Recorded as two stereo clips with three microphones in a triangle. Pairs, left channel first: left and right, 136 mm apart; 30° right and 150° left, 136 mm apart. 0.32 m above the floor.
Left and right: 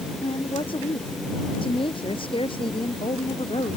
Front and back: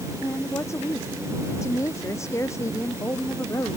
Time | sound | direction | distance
0.2 | a woman speaking | 40° left | ?